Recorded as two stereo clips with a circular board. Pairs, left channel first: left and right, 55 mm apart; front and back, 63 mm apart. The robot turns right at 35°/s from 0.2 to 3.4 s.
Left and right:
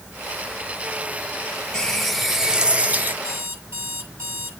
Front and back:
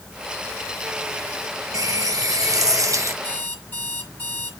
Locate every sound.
1.7 s a running tap: 165° left, 1.0 m; by 3.1 s 145° right, 1.0 m
3.2 s an alarm clock: 65° right, 6.5 m; by 4.5 s 60° right, 6.5 m